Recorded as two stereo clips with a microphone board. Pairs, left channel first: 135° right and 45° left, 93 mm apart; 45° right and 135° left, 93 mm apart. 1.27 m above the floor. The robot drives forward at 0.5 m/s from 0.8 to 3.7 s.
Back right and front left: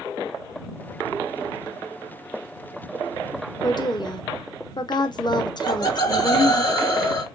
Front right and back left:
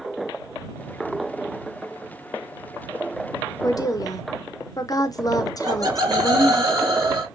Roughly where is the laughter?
Behind.